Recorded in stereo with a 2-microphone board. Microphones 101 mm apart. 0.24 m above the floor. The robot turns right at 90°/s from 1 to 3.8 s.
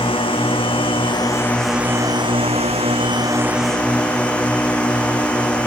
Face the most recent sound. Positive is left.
turn(degrees=10)